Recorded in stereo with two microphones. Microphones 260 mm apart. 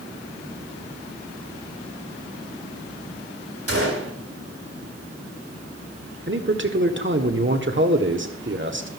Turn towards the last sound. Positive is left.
turn(degrees=-45)  # may be behind; listen again after turning